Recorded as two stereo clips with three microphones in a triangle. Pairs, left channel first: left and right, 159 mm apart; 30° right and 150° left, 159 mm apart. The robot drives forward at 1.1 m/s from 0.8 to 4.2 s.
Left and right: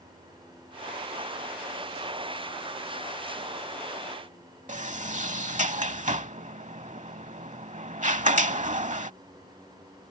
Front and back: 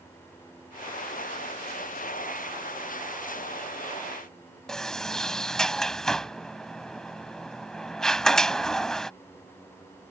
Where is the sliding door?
115° right.